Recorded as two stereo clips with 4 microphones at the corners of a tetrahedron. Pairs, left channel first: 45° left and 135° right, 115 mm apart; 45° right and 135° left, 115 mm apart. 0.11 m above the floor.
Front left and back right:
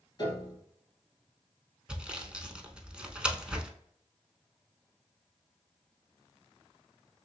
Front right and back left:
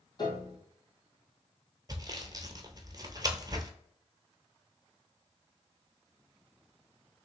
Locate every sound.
0.2 s a piano: 5° right, 1.4 m
1.9 s sawing: 150° left, 0.6 m